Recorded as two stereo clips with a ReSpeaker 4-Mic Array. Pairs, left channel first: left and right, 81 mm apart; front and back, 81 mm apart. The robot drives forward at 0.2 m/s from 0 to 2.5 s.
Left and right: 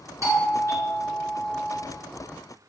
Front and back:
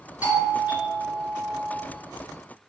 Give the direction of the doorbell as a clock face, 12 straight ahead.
4 o'clock.